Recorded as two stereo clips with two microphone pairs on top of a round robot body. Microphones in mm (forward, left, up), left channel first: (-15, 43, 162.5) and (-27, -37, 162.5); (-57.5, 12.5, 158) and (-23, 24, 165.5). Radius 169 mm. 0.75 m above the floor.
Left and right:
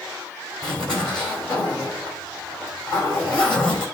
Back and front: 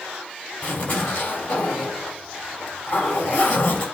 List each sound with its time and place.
0.6 s a zipper: 165° left, 4 m